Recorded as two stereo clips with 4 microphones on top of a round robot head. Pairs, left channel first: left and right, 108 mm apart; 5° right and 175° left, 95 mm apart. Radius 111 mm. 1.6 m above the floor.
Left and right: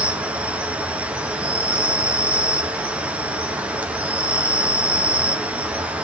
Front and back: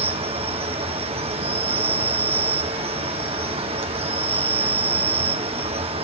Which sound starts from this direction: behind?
An insect, at 0.0 s.